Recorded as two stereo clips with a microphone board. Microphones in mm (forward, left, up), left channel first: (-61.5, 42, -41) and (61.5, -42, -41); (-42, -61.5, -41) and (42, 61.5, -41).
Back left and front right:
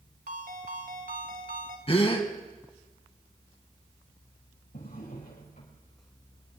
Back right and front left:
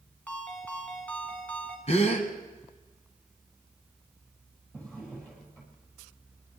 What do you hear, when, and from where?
0.3 s a ringtone: 45° right, 2 m
1.9 s a gasp: 165° right, 1.7 m
4.7 s a drawer: 150° left, 5 m